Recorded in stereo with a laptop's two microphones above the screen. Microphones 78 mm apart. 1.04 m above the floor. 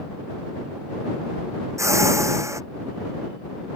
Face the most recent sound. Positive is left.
turn(degrees=-40)  # may be behind; listen again after turning